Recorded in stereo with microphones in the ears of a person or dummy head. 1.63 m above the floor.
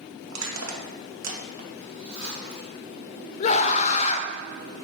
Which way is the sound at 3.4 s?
40° left (ahead or behind).